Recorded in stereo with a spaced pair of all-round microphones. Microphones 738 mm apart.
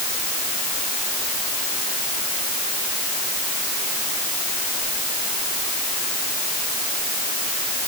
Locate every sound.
Only background noise.